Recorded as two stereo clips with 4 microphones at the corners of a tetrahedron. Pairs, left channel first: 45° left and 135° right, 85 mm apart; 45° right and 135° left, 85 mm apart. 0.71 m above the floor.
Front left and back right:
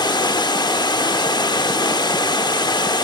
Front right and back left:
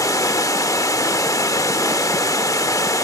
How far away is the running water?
About 0.8 m.